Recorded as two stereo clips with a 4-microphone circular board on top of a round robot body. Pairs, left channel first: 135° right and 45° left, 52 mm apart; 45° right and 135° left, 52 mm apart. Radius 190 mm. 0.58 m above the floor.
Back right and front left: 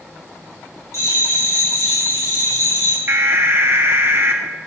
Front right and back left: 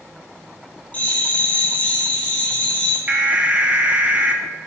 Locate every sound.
0.9 s a bell: 110° right, 3.5 m
3.1 s an alarm: 80° left, 1.1 m